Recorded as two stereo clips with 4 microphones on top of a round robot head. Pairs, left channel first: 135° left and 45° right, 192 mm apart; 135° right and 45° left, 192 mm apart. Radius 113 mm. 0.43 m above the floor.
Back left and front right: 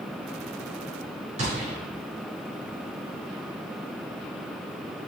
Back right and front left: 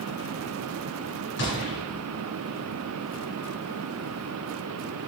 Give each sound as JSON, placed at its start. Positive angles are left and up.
{"t": 1.4, "sound": "a gunshot", "azimuth_deg": -105, "distance_m": 3.5}